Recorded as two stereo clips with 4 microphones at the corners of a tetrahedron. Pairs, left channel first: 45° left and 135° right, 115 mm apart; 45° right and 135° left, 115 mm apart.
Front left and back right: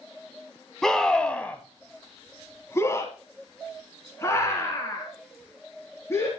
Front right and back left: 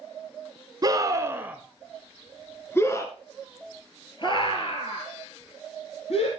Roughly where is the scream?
Behind left.